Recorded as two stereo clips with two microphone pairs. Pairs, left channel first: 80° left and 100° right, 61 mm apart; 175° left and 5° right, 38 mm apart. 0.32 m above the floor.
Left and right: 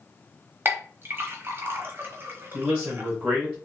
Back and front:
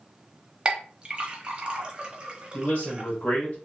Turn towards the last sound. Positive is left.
turn(degrees=-175)